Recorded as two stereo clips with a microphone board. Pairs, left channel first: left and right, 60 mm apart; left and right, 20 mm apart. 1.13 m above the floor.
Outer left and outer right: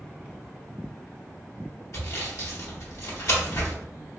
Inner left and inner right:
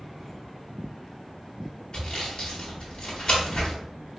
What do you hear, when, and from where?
1.9 s sawing: 55° left (ahead or behind), 1.1 m